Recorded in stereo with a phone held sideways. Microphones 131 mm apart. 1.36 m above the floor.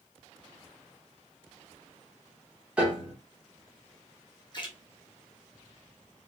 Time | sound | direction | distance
2.8 | a piano | 5° right (ahead or behind) | 0.9 m
4.5 | a splash | 35° left (ahead or behind) | 0.8 m